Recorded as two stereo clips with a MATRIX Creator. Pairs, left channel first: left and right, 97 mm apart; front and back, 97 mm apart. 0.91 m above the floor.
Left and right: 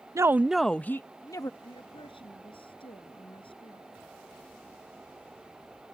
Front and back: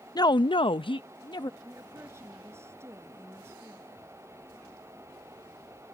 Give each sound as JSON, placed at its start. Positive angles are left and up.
{"t": 0.1, "sound": "a woman speaking", "azimuth_deg": -35}
{"t": 1.6, "sound": "a woman speaking", "azimuth_deg": 120}